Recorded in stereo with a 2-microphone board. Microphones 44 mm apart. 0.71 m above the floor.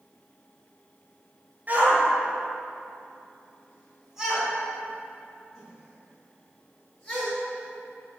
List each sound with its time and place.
1.7 s a shout: 45° right (ahead or behind), 2.5 m; by 7.3 s 10° left (ahead or behind), 7.5 m